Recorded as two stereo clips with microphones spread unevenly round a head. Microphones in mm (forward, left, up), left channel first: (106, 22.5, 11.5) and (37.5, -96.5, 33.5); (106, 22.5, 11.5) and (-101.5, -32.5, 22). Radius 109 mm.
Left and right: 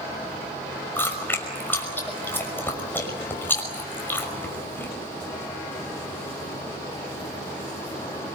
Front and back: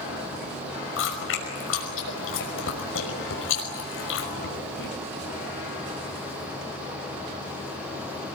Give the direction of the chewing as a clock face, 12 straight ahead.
1 o'clock.